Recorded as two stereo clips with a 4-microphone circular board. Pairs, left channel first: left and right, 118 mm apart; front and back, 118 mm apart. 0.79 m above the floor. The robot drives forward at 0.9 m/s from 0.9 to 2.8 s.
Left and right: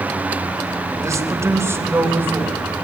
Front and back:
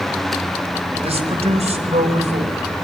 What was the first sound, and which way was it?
A man speaking, 155° right.